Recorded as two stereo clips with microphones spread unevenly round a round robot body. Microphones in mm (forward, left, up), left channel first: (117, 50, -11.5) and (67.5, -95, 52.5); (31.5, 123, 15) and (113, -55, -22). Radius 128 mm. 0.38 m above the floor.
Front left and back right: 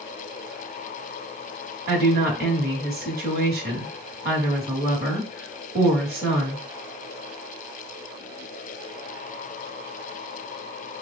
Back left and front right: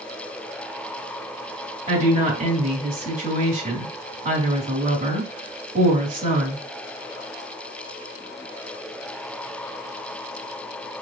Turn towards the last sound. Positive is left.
turn(degrees=-95)